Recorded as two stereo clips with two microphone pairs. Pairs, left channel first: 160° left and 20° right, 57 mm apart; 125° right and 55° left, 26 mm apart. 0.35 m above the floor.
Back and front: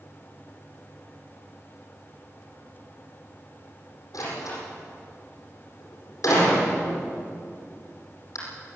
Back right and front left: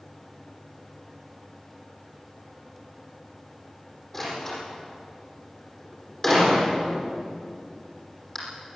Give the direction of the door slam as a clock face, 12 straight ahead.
7 o'clock.